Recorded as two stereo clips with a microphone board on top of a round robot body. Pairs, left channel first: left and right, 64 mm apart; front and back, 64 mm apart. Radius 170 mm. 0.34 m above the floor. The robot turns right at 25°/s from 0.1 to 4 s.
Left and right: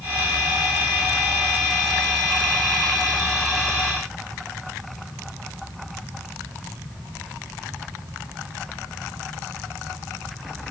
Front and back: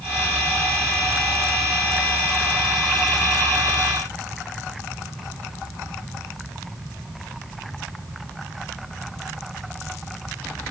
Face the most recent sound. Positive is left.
No sound to turn to.